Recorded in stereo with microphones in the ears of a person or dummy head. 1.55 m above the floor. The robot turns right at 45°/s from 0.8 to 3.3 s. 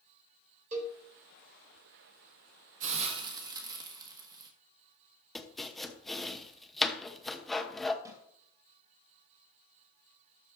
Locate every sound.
0.7 s a cowbell: 40° right (ahead or behind), 3 m; by 1.0 s 30° right (ahead or behind), 3 m
2.8 s a hiss: 40° right (ahead or behind), 1.5 m; by 4.5 s 20° right (ahead or behind), 1.5 m
5.3 s chopping: centre (ahead or behind), 0.8 m
8.1 s a snare drum: 20° right (ahead or behind), 3.5 m